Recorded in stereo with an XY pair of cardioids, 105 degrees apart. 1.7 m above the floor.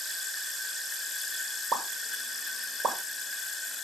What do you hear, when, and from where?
1.7 s a pop: 55° right, 3.5 m